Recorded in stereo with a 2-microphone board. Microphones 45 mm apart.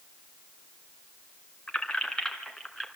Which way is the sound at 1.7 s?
20° left (ahead or behind).